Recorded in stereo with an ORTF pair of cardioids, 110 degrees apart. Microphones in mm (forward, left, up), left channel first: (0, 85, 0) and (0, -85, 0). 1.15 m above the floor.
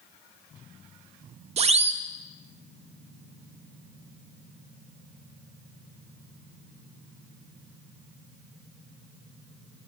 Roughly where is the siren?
Ahead right.